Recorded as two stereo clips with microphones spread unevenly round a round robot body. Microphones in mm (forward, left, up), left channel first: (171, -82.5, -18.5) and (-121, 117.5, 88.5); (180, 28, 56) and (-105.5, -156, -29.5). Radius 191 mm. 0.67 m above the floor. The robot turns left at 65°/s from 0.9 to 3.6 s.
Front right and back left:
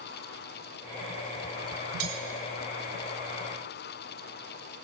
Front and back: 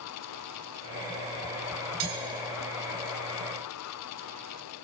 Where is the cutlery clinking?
175° right, 2.5 m; by 2.2 s 175° left, 2.5 m.